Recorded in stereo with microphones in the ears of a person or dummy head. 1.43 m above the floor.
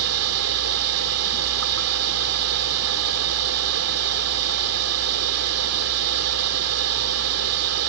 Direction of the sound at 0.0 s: 85° right.